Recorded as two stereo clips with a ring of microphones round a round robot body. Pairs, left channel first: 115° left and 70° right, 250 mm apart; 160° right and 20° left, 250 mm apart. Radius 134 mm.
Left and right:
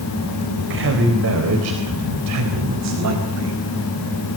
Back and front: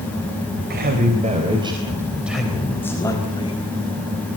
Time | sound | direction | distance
0.6 | a man speaking | 25° right | 4 m